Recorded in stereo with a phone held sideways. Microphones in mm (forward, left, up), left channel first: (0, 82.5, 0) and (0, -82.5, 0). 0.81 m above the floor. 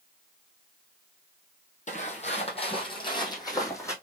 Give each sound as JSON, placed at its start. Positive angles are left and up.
{"t": 1.9, "sound": "footsteps", "side_deg": 50, "distance_m": 1.3}